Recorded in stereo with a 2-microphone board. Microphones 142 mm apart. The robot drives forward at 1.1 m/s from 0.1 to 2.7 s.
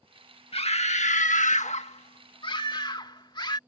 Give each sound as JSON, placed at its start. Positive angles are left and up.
{"t": 0.5, "sound": "a scream", "side_deg": 45}